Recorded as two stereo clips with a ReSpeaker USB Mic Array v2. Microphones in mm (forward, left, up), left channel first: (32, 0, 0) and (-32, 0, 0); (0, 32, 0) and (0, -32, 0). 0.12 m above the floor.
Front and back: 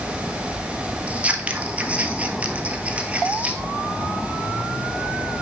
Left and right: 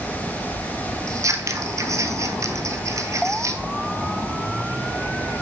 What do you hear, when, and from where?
1.1 s scissors: 115° right, 0.8 m